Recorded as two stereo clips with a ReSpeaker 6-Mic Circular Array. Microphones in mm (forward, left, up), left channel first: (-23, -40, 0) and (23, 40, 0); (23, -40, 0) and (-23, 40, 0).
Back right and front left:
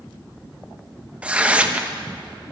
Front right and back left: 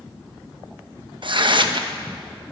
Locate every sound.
1.2 s tearing paper: 135° left, 0.8 m